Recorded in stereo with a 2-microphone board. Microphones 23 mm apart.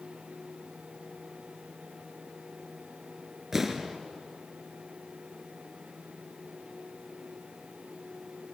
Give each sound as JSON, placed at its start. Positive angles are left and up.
{"t": 3.5, "sound": "an explosion", "side_deg": -10, "distance_m": 1.6}